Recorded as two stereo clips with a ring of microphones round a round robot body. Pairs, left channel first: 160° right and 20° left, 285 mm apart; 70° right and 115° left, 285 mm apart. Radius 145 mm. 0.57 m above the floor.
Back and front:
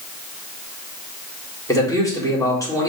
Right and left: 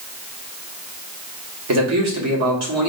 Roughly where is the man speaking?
Behind left.